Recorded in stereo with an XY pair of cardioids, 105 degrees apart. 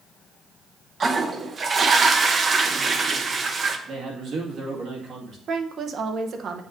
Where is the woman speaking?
55° right, 0.8 m.